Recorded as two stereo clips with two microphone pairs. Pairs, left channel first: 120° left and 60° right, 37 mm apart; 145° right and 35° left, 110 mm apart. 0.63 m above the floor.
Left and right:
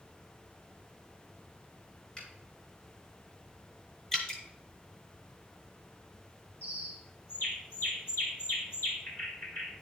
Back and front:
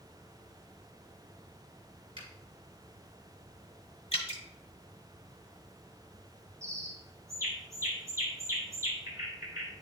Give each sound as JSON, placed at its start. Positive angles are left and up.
{"t": 2.2, "sound": "a finger snap", "azimuth_deg": 60, "distance_m": 3.0}
{"t": 4.1, "sound": "dripping", "azimuth_deg": -175, "distance_m": 1.2}
{"t": 6.6, "sound": "a bird", "azimuth_deg": 95, "distance_m": 1.8}